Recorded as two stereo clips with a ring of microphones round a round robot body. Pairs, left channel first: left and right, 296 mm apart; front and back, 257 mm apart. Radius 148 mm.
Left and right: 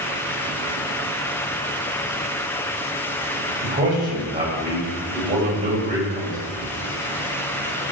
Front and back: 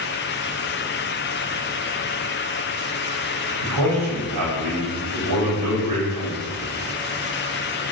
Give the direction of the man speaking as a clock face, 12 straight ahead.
5 o'clock.